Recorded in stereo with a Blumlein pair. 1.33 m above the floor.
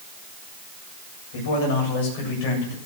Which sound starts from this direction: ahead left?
A man speaking, at 1.3 s.